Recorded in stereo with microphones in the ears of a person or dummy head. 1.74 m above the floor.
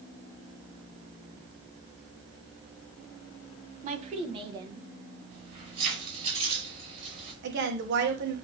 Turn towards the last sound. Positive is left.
turn(degrees=-60)  # may be behind; listen again after turning